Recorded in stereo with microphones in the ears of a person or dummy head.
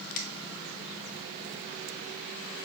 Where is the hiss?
No hiss in this recording.